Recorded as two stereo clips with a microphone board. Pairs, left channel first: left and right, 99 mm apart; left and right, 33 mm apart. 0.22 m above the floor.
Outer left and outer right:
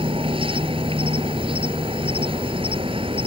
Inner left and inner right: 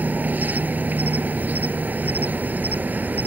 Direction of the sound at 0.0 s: 70° right (ahead or behind).